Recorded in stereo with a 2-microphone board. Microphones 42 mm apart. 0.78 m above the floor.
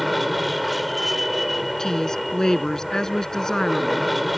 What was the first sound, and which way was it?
An aircraft, centre (ahead or behind).